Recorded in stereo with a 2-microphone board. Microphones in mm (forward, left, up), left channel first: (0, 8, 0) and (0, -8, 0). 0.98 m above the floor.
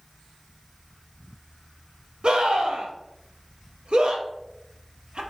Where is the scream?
65° right (ahead or behind), 1.4 m.